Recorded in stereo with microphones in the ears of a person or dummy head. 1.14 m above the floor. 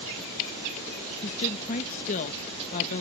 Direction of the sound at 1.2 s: 40° left (ahead or behind).